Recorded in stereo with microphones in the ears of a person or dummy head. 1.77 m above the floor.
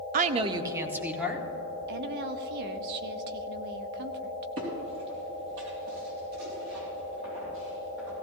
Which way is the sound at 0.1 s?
45° right (ahead or behind).